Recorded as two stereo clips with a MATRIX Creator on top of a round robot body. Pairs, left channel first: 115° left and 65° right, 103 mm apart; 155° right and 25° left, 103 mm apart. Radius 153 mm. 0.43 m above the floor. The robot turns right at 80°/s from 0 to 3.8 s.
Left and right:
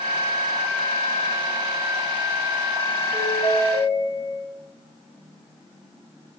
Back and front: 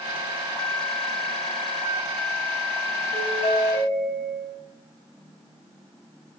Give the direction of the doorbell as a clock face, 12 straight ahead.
6 o'clock.